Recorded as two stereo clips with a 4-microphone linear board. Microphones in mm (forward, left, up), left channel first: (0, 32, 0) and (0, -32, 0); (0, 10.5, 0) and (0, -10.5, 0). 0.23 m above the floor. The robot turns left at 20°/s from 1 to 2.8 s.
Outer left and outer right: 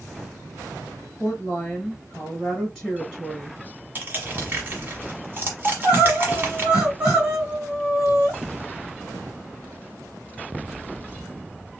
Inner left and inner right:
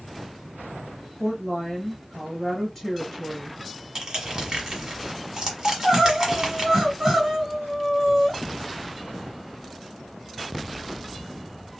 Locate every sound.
1.2 s a woman speaking: 15° left (ahead or behind), 1.5 m; by 3.6 s centre (ahead or behind), 1.5 m
4.0 s crushing: 30° right (ahead or behind), 1.3 m
5.7 s crying: 15° right (ahead or behind), 2.5 m